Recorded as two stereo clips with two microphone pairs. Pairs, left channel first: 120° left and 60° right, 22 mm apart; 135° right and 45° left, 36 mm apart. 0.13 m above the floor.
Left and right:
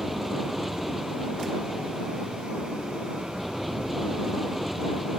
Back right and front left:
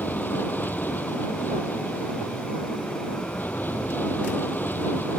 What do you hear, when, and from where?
0.0 s an aircraft: 150° right